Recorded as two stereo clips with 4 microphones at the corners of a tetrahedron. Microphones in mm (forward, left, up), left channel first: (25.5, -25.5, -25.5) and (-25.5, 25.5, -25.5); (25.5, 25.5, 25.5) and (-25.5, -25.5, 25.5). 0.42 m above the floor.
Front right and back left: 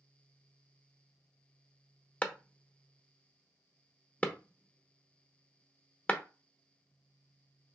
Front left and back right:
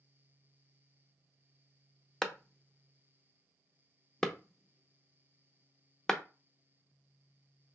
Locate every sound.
2.2 s a clap: 20° right, 0.6 m